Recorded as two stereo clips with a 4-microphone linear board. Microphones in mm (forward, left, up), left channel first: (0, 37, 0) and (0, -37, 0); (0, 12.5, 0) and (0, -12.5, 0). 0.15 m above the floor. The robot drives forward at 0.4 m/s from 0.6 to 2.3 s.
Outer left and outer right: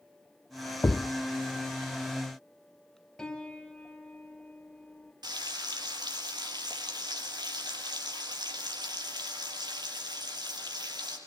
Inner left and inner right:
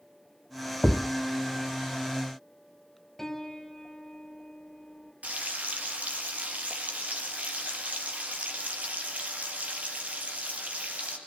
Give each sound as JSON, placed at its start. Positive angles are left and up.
{"t": 0.8, "sound": "a thud", "side_deg": 30, "distance_m": 0.7}
{"t": 3.2, "sound": "a piano", "side_deg": 10, "distance_m": 2.5}
{"t": 5.2, "sound": "frying", "side_deg": -65, "distance_m": 3.5}